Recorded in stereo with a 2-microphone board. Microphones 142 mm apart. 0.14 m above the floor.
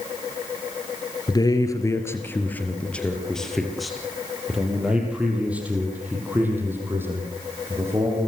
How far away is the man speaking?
About 3 m.